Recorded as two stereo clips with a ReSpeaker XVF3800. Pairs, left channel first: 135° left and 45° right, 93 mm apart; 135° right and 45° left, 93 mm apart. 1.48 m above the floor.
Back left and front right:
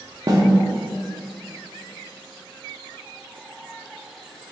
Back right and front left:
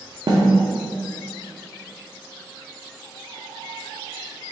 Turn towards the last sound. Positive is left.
turn(degrees=5)